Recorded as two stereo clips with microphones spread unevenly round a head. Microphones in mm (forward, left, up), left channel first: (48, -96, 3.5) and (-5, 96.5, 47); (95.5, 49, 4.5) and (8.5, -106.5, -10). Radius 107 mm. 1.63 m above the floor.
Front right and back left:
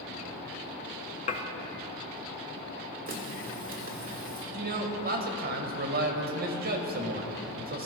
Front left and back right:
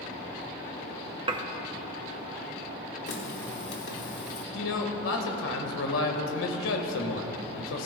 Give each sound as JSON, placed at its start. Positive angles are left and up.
{"t": 1.3, "sound": "dishes clattering", "azimuth_deg": -110, "distance_m": 0.6}
{"t": 3.1, "sound": "a running tap", "azimuth_deg": 70, "distance_m": 1.6}
{"t": 4.5, "sound": "a man speaking", "azimuth_deg": 65, "distance_m": 1.6}